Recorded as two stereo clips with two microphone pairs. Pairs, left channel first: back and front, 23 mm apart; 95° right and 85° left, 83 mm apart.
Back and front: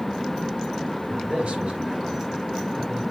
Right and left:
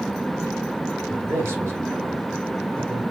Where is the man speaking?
25° left, 3 m.